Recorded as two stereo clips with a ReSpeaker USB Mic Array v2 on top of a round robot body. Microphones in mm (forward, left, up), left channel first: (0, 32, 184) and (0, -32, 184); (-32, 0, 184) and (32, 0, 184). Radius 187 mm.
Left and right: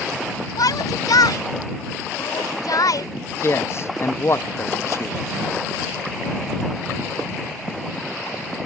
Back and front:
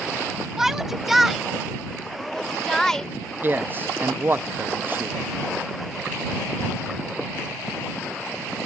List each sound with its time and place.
0.6 s a shout: 85° left; by 3.1 s 100° left
3.4 s a man speaking: 55° left